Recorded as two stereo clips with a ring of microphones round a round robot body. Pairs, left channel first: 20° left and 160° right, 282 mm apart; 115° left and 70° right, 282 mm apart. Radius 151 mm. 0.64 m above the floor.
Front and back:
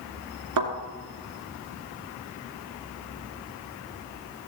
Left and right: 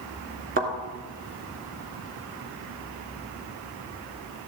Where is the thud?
130° right, 2.5 m.